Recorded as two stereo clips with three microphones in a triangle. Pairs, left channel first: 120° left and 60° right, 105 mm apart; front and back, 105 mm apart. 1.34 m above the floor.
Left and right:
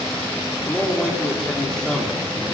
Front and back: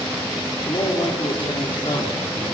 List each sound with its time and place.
0.7 s a man speaking: 40° left, 4 m